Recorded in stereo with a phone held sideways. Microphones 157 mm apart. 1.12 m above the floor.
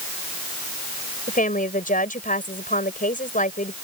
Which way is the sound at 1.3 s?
60° left (ahead or behind).